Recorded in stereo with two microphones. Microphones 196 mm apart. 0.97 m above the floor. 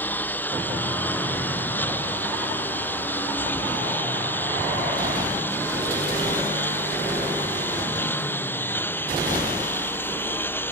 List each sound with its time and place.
0.0 s a lawn mower: 10° left (ahead or behind)